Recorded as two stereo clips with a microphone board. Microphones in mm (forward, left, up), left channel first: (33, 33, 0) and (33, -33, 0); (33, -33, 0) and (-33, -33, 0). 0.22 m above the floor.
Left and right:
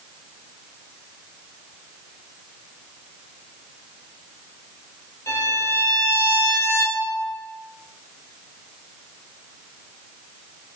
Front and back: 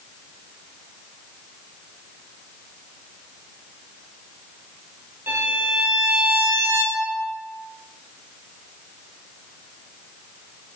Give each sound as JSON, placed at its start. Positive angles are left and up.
{"t": 5.3, "sound": "a violin", "azimuth_deg": 125, "distance_m": 0.8}